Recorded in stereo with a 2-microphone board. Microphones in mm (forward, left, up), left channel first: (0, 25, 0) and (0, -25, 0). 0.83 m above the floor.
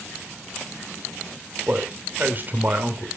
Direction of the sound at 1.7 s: 35° right (ahead or behind).